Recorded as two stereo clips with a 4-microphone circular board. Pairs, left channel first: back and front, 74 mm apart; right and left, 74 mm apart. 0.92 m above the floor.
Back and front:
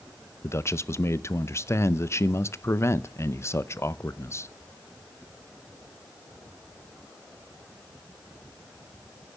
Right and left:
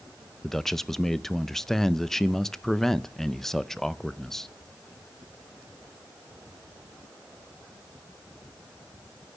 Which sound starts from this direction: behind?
A man speaking, at 0.4 s.